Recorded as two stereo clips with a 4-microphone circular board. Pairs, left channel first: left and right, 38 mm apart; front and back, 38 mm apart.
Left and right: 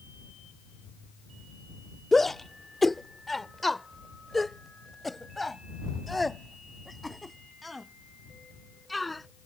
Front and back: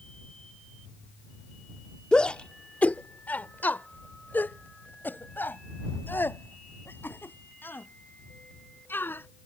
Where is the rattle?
I don't hear a rattle.